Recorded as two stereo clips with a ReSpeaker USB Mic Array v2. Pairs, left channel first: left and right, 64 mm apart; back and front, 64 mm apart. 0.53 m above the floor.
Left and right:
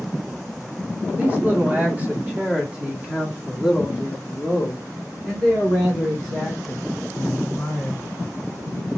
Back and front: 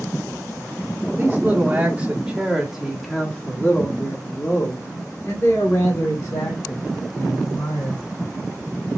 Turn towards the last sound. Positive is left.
turn(degrees=170)